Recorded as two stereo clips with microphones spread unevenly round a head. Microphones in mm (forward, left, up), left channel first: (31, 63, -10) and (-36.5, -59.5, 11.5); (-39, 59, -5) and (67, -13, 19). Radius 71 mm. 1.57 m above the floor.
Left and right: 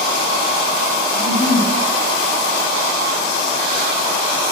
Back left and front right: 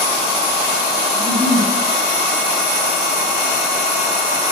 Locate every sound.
1.1 s a giggle: 10° left, 1.7 m